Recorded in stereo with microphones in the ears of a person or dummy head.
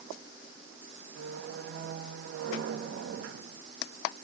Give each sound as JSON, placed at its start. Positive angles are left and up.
{"t": 1.1, "sound": "a squeak", "side_deg": -60, "distance_m": 0.9}